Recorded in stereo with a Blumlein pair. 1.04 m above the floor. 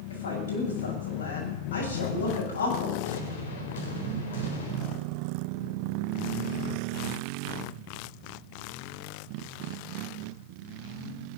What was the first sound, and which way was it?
A woman speaking, 70° left.